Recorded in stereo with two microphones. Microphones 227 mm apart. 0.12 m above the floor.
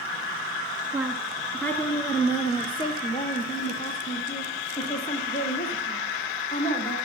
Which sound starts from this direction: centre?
A woman speaking, at 0.9 s.